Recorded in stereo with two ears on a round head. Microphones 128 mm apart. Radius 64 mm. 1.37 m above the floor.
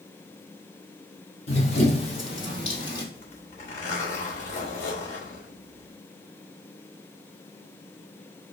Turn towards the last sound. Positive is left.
turn(degrees=50)  # may be behind; listen again after turning